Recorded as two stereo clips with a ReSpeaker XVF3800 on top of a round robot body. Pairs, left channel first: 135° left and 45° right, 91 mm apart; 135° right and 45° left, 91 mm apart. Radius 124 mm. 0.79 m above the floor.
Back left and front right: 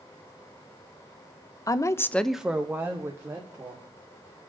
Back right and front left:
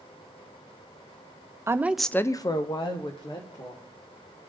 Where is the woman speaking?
95° left, 0.7 m; by 3.9 s 105° right, 2 m.